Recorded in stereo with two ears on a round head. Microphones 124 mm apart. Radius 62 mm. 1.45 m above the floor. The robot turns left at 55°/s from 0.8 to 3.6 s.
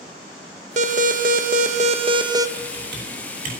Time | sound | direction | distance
0.8 | an alarm | 60° right | 1.0 m
2.6 | typing on a keyboard | 65° right (ahead or behind) | 6 m